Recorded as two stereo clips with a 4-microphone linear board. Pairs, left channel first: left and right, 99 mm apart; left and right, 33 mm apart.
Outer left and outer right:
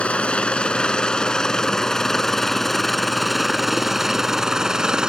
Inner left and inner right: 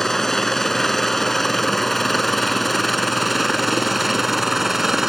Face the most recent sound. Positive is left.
turn(degrees=-10)  # may be behind; listen again after turning